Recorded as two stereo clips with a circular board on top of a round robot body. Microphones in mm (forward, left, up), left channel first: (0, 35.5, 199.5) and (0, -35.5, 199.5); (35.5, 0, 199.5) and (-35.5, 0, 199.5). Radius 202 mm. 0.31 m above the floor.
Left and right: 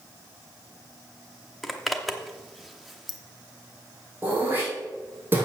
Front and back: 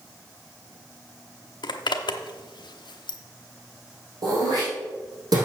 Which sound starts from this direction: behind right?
Throat clearing, at 4.2 s.